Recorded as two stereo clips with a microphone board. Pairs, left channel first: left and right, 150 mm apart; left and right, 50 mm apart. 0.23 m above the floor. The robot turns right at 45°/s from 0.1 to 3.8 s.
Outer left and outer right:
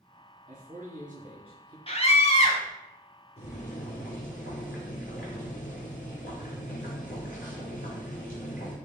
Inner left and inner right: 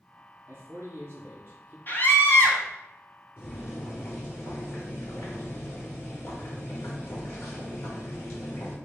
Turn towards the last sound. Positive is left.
turn(degrees=60)  # may be behind; listen again after turning